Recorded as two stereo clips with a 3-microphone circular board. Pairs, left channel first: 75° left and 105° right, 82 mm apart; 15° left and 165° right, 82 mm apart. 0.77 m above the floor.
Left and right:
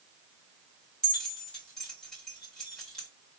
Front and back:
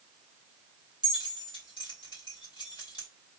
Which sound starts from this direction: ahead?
Keys jangling, at 1.0 s.